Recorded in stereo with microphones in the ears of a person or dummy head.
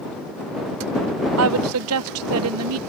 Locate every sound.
1.4 s a woman speaking: 85° right